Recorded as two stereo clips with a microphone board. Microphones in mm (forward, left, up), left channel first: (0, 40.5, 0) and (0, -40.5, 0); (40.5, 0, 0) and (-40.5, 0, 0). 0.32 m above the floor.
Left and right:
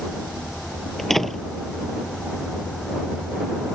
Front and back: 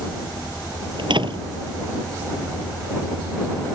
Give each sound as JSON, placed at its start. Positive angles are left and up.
{"t": 1.0, "sound": "a door slam", "azimuth_deg": 175}